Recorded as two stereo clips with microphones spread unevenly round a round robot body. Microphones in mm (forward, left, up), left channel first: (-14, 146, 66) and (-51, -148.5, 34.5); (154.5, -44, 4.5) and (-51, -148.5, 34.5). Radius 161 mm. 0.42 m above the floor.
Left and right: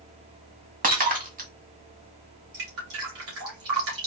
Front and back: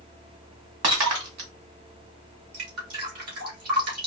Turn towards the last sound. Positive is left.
turn(degrees=-140)